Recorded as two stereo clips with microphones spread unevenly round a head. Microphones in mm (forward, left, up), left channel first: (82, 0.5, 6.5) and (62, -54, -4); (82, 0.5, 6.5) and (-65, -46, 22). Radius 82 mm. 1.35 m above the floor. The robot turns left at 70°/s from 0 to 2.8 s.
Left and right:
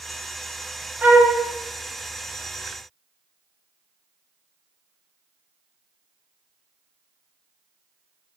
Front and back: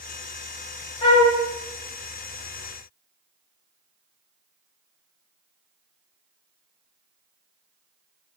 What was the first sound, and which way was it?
A flute, 40° right.